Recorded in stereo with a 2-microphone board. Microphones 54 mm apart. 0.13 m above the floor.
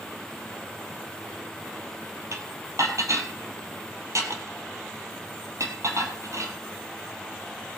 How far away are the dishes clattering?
About 2.5 m.